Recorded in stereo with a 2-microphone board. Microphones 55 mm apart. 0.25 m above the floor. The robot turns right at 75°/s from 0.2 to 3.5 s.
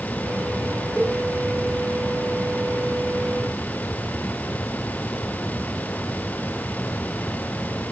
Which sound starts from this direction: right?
A cowbell, at 1.0 s.